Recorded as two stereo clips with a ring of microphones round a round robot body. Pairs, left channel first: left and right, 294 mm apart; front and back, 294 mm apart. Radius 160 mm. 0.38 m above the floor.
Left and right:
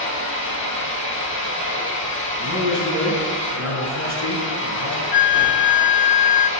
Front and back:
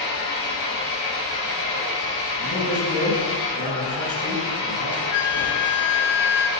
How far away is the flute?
About 0.7 m.